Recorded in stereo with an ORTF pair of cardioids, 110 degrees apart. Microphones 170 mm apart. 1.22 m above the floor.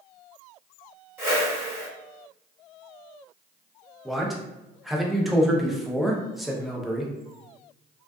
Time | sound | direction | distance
1.2 | a whoosh | 15° right | 1.2 m
4.0 | a man speaking | straight ahead | 0.6 m